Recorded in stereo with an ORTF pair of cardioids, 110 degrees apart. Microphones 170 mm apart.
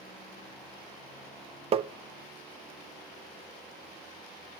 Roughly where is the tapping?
Ahead right.